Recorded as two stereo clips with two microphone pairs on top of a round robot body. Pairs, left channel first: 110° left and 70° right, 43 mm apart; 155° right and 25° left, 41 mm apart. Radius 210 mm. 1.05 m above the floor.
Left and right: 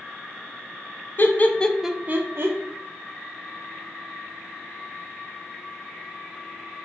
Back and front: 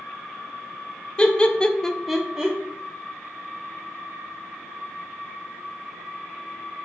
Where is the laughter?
150° left, 0.7 m; by 2.6 s 65° right, 0.7 m.